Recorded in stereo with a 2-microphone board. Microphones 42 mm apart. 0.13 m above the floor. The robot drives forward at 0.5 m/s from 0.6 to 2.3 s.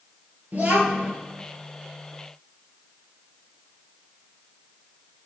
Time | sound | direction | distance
0.5 | a child speaking | 40° right (ahead or behind) | 2 m